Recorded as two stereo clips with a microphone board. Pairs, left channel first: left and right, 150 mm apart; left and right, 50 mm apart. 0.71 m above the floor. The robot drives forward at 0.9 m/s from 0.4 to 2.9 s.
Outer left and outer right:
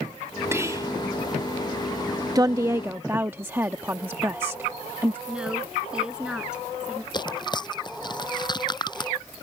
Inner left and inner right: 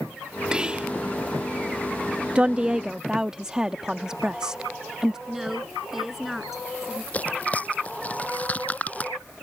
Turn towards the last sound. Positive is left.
turn(degrees=30)  # may be behind; listen again after turning